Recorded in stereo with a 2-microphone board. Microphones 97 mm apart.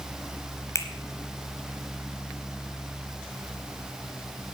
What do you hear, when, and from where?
0.8 s a finger snap: 30° left (ahead or behind), 1.1 m